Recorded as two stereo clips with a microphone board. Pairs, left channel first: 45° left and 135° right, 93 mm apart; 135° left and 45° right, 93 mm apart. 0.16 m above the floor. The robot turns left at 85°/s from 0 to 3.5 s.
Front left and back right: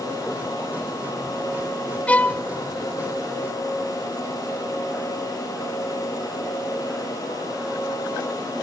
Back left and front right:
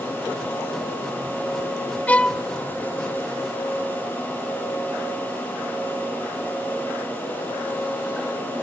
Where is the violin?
95° left, 0.5 m; by 2.4 s 65° left, 0.5 m.